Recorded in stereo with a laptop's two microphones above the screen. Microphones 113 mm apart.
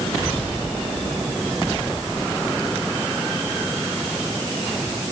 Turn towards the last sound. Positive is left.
No sound to turn to.